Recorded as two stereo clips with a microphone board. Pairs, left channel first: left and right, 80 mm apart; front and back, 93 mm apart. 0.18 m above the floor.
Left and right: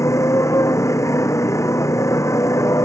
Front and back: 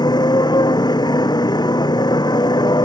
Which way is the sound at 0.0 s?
40° left.